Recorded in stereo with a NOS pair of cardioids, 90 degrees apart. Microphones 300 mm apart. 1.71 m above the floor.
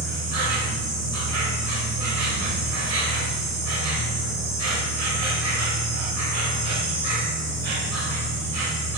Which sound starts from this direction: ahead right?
An insect, at 0.0 s.